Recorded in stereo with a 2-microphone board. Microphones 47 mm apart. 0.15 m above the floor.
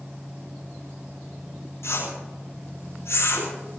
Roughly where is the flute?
I don't hear a flute.